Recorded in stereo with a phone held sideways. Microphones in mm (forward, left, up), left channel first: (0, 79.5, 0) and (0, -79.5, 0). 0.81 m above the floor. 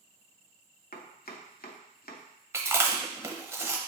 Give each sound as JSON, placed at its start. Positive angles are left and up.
{"t": 0.9, "sound": "chopping", "side_deg": 70, "distance_m": 0.6}
{"t": 2.5, "sound": "chewing", "side_deg": -15, "distance_m": 0.7}